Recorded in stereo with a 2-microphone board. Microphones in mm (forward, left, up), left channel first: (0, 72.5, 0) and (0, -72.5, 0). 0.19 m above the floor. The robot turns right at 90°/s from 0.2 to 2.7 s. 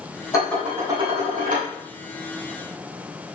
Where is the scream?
I don't hear a scream.